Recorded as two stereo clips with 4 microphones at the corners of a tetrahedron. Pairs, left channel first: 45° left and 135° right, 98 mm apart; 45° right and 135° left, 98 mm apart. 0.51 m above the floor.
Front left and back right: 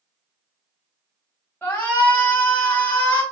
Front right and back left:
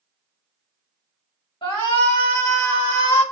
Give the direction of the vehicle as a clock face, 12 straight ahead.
I don't hear a vehicle.